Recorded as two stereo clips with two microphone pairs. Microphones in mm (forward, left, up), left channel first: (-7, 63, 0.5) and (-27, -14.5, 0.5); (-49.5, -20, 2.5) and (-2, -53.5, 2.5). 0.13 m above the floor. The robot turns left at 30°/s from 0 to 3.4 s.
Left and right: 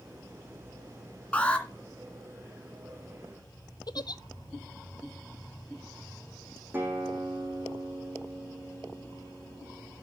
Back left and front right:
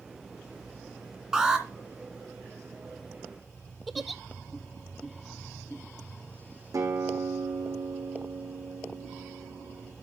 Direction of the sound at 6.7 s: 40° right.